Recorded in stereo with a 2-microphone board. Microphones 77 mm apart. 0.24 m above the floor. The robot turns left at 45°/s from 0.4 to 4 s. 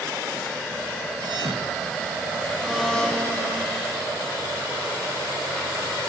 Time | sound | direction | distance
1.2 | a thud | 70° right (ahead or behind) | 2 m
2.6 | a blender | 170° right | 7 m